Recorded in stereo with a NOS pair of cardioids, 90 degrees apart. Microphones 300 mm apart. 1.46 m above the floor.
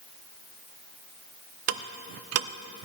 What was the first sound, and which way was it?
Ticking, 60° right.